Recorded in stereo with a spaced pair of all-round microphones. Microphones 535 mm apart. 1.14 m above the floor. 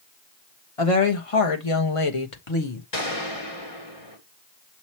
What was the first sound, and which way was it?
A woman speaking, 75° left (ahead or behind).